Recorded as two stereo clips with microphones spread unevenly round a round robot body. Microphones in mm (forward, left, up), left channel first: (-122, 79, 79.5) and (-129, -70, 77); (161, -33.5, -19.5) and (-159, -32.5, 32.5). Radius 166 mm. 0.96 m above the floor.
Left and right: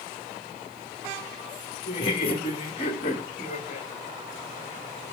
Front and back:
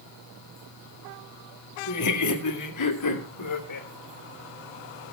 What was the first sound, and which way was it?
Laughter, 30° left.